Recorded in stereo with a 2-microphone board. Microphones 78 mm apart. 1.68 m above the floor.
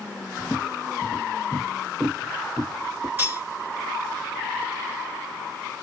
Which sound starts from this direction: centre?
Footsteps, at 0.4 s.